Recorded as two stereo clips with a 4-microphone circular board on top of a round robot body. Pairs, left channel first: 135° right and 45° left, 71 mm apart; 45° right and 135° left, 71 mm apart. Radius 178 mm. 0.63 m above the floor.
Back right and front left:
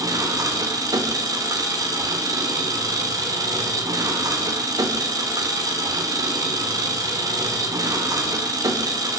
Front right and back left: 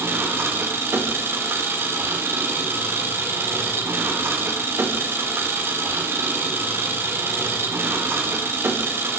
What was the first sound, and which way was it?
An engine running, 80° left.